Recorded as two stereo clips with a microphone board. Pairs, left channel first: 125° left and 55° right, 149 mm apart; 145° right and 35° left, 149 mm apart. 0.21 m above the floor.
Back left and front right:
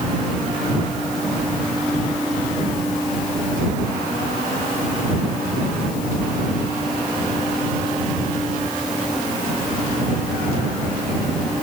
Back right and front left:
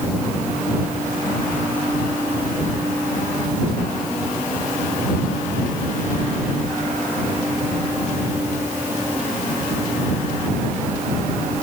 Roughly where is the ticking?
I don't hear ticking.